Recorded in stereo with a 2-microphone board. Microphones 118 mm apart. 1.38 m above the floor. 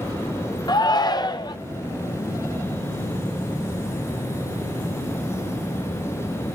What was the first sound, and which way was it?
A shout, 35° left (ahead or behind).